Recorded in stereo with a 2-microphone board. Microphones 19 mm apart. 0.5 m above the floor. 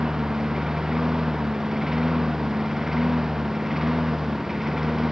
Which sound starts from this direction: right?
A lawn mower, at 0.0 s.